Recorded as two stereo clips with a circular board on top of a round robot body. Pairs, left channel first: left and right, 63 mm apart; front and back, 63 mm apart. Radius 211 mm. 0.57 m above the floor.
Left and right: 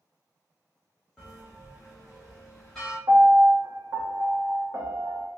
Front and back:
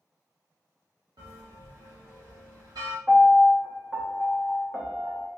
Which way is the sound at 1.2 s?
175° left.